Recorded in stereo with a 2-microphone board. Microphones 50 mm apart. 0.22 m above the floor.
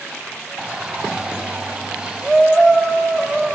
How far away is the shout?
About 1.8 m.